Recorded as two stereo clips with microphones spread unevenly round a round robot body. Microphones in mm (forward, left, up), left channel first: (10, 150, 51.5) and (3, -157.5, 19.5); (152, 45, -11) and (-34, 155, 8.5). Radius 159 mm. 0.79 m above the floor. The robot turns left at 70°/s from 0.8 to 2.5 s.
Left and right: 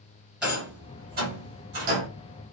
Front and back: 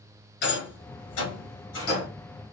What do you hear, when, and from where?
0.4 s a rattle: straight ahead, 1.8 m; by 2.1 s 90° right, 1.8 m